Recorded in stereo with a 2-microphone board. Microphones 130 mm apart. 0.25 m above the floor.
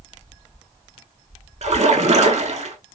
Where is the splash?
60° right (ahead or behind), 0.5 m.